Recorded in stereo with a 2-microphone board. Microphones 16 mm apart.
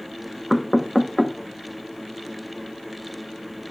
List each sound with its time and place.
0.5 s knocking: 15° left (ahead or behind), 0.8 m